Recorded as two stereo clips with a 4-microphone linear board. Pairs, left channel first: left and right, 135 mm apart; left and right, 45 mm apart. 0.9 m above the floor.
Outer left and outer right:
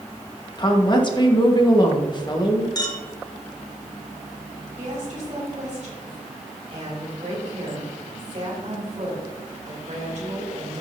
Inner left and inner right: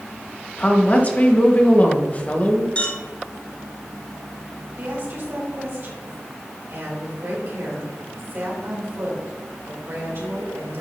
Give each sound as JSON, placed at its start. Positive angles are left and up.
{"t": 0.6, "sound": "a woman speaking", "side_deg": 35, "distance_m": 1.4}
{"t": 2.8, "sound": "a clink", "side_deg": 30, "distance_m": 1.8}
{"t": 4.8, "sound": "a woman speaking", "side_deg": -60, "distance_m": 3.5}